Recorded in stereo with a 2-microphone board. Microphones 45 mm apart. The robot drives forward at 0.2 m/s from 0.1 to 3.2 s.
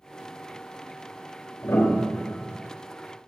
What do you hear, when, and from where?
1.6 s a piano: 85° left, 3 m; by 2.6 s 90° left, 3 m